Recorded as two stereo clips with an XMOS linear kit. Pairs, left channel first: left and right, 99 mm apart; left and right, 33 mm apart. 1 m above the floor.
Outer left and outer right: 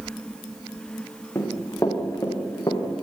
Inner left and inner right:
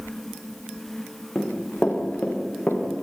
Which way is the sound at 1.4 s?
25° left (ahead or behind).